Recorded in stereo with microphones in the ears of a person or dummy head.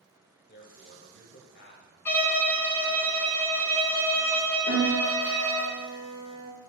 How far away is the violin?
About 0.8 m.